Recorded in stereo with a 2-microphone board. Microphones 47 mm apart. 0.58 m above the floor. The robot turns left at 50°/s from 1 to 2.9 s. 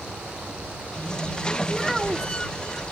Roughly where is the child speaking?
Ahead.